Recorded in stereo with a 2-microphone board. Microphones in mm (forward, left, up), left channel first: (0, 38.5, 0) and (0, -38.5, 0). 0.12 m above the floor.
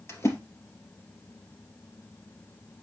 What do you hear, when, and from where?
0.1 s a splash: 40° left (ahead or behind), 2.5 m